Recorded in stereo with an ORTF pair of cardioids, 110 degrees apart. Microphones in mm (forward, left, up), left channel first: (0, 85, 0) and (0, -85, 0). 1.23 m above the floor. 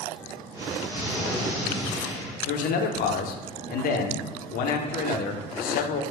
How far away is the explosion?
About 1.7 m.